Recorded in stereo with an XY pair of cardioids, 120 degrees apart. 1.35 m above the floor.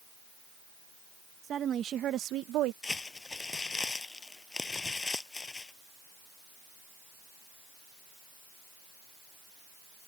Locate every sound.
1.4 s a woman speaking: 45° right; by 2.7 s 80° right
2.8 s crumpling: 20° left